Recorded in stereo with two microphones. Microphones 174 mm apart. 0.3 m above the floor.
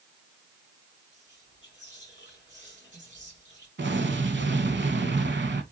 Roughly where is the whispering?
Right.